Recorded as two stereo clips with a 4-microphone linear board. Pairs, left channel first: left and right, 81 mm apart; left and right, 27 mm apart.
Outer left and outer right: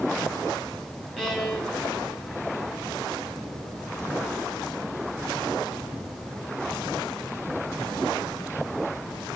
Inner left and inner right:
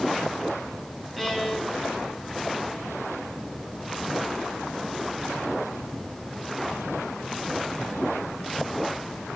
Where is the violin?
5° left (ahead or behind), 7 m.